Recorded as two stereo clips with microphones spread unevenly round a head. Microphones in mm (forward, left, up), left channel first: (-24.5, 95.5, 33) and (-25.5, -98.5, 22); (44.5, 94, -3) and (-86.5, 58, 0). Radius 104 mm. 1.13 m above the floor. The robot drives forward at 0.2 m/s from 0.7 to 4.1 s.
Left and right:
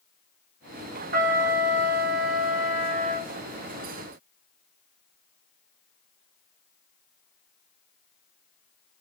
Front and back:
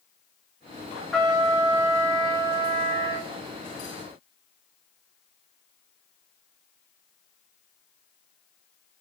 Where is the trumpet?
75° right, 0.5 m; by 3.3 s 140° right, 0.6 m.